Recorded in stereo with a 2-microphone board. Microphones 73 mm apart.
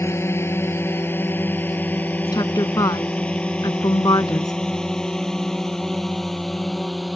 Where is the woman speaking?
60° left (ahead or behind).